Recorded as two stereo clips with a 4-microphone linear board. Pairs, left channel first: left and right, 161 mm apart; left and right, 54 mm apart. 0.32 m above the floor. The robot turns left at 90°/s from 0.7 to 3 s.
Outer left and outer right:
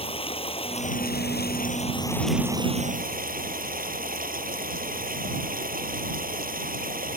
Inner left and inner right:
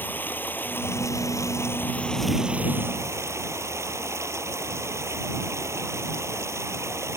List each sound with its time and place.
0.0 s running water: 145° left; by 7.2 s 65° right